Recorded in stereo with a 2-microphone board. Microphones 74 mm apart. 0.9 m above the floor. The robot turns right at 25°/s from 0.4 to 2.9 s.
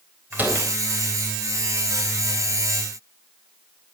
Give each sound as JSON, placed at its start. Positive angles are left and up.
{"t": 0.3, "sound": "a door slam", "side_deg": -25, "distance_m": 3.5}